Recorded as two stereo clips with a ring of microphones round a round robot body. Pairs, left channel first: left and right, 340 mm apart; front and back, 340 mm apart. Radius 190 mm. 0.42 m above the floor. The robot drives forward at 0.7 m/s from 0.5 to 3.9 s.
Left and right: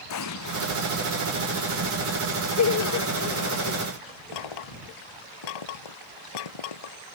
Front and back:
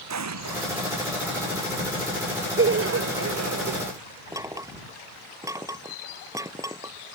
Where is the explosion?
140° left.